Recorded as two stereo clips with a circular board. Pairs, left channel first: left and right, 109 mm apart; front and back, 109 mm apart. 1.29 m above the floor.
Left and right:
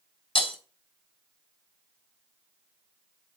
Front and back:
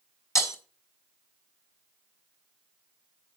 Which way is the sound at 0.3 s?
60° left.